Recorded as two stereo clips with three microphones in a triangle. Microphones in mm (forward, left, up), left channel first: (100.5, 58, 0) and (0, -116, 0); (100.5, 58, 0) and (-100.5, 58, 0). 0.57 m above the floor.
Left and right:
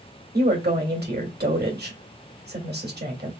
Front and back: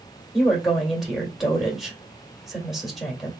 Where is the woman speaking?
90° right, 1.8 m.